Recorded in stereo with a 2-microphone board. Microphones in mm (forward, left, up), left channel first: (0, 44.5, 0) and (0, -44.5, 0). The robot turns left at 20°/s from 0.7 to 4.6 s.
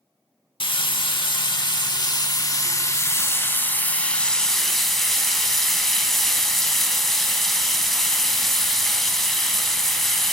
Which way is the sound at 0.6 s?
85° left.